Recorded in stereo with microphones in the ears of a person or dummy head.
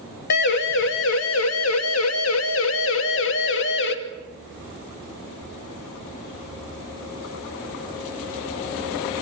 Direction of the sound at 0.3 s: 60° left (ahead or behind).